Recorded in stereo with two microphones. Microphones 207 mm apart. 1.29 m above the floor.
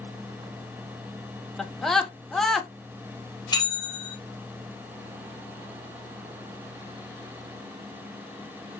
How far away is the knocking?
No knocking in this recording.